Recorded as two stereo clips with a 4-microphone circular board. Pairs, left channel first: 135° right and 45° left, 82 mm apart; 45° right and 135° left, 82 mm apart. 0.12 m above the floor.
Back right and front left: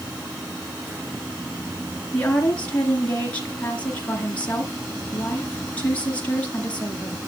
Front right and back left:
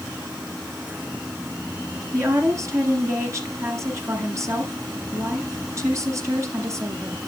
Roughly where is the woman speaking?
Behind.